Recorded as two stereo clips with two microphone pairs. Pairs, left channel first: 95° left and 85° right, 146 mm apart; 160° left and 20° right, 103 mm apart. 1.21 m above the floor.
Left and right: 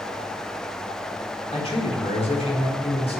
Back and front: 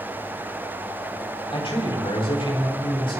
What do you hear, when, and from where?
1.5 s a man speaking: 140° left, 4 m